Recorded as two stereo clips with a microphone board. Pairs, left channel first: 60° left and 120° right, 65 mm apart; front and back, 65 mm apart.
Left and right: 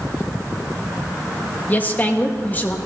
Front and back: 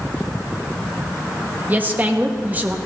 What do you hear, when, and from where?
1.7 s a woman speaking: 120° left, 1.1 m